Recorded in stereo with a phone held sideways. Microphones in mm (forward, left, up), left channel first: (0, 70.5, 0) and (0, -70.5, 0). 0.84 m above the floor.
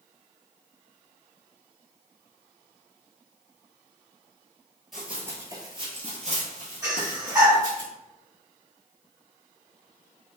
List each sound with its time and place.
4.9 s running footsteps: centre (ahead or behind), 1.0 m; by 7.8 s 55° right (ahead or behind), 2 m
6.8 s breathing: 25° right (ahead or behind), 1.8 m